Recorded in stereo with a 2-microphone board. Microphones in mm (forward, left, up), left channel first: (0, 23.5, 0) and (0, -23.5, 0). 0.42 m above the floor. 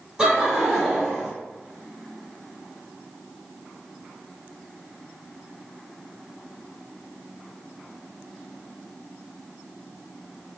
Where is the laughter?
15° right (ahead or behind), 1.9 m; by 1.3 s 5° left (ahead or behind), 1.5 m.